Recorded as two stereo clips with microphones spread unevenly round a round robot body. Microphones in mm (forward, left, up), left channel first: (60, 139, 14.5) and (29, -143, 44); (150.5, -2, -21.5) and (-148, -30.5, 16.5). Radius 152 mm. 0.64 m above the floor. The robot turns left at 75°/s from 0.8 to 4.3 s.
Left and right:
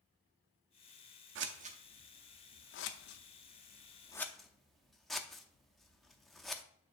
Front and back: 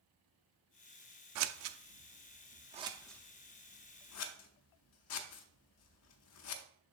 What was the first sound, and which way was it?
Scissors, 140° right.